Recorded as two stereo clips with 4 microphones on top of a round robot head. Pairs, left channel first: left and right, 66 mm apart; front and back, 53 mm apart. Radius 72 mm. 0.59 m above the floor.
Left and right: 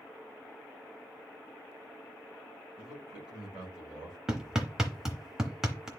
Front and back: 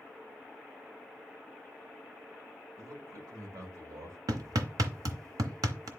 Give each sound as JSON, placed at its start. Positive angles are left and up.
{"t": 2.8, "sound": "a man speaking", "azimuth_deg": -170, "distance_m": 2.5}
{"t": 4.3, "sound": "hammering", "azimuth_deg": -175, "distance_m": 0.9}